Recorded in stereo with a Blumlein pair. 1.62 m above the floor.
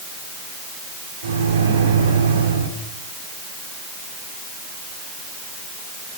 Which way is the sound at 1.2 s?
65° right.